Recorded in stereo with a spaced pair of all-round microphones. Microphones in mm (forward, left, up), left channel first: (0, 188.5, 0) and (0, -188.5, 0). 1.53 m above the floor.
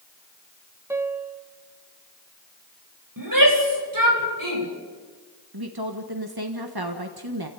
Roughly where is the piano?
Centre.